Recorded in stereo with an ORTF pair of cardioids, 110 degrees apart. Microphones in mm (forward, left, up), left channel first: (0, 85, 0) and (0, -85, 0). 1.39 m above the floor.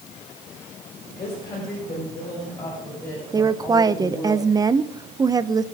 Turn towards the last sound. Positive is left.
turn(degrees=-20)